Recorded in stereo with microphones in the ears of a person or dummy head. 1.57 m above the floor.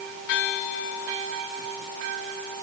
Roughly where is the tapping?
No tapping in this recording.